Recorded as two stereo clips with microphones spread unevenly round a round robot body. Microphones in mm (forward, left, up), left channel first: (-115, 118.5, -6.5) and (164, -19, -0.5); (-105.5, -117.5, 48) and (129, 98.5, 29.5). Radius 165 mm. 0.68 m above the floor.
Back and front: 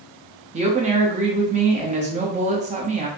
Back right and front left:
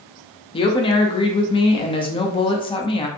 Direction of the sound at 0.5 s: 70° right.